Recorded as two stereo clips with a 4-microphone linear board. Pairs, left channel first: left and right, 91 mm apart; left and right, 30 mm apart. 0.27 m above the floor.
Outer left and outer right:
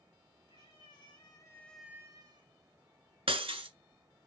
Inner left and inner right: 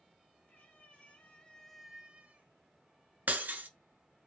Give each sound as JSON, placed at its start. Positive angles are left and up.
{"t": 0.5, "sound": "a cat meowing", "side_deg": 65, "distance_m": 1.9}
{"t": 3.3, "sound": "breaking glass", "side_deg": -90, "distance_m": 0.7}